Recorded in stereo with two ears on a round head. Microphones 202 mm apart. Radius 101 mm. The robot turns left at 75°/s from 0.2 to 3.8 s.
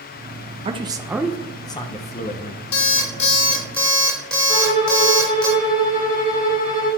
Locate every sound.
0.7 s a man speaking: 130° right, 0.7 m; by 2.6 s 80° left, 0.7 m
2.7 s an alarm clock: 85° left, 2.0 m; by 5.5 s 5° left, 2.0 m
4.5 s a violin: 25° right (ahead or behind), 3 m